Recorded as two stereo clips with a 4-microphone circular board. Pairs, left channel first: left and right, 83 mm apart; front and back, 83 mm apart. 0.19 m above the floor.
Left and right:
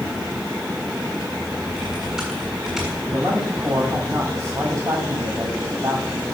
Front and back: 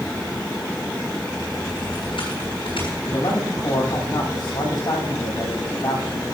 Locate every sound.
1.7 s typing on a keyboard: 5° right, 7 m
3.1 s a man speaking: 35° right, 8 m